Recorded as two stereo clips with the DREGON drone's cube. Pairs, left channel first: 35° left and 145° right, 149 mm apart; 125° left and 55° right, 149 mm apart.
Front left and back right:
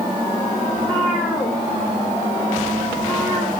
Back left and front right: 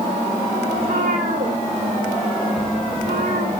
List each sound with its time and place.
0.8 s a cat meowing: 45° right, 10 m